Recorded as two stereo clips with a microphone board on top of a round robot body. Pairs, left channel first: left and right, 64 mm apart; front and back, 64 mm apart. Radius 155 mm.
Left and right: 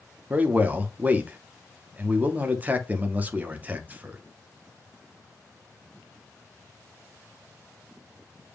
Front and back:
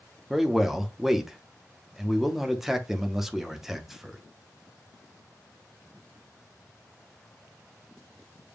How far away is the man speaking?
About 1.0 m.